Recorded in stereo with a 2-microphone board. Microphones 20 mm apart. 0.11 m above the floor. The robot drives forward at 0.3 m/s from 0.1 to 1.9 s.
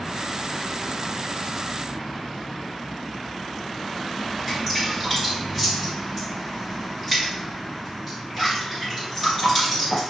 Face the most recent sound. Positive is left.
turn(degrees=5)  # may be behind; listen again after turning